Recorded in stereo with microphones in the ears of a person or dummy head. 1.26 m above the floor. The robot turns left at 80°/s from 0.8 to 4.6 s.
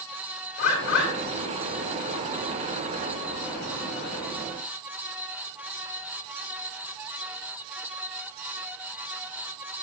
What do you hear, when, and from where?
0.6 s a bird: 55° left (ahead or behind), 3 m; by 1.1 s 80° left, 3 m